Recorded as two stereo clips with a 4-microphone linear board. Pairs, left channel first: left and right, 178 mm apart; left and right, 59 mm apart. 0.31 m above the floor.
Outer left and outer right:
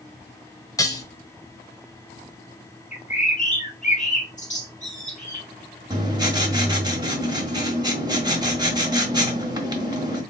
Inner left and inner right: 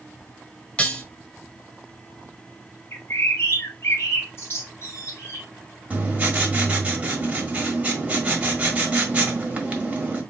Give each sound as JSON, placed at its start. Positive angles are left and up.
{"t": 0.8, "sound": "dishes clattering", "side_deg": 20, "distance_m": 1.0}
{"t": 2.9, "sound": "a bird", "side_deg": 45, "distance_m": 1.5}
{"t": 5.9, "sound": "writing", "side_deg": -25, "distance_m": 1.3}